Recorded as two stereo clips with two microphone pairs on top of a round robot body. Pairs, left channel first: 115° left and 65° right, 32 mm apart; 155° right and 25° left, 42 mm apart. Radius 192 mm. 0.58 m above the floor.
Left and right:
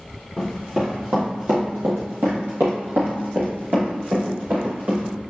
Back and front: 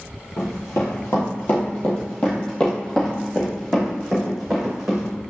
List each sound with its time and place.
0.4 s running footsteps: 145° right, 0.9 m; by 5.1 s 60° right, 2.5 m